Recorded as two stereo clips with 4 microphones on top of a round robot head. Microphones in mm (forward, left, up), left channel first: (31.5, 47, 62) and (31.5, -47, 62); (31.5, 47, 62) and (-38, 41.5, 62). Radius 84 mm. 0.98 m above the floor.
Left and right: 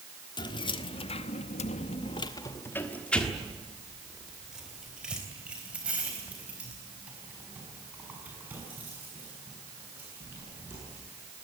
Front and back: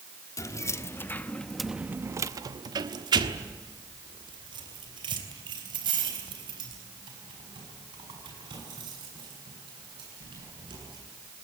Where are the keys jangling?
50° left, 1.5 m; by 11.0 s 165° right, 8.5 m.